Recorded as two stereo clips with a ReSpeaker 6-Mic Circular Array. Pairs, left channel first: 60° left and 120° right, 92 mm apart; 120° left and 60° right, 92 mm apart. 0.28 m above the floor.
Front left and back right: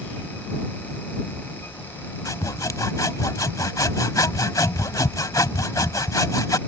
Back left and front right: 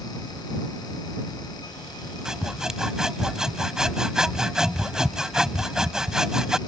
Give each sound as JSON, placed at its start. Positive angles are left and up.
{"t": 2.2, "sound": "sawing", "azimuth_deg": 20}